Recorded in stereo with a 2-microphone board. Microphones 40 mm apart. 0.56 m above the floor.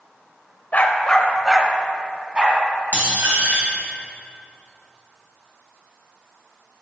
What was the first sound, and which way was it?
A dog barking, 45° left (ahead or behind).